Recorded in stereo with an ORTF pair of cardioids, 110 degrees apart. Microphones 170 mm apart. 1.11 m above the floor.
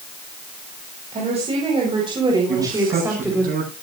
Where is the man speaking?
55° right, 10 m.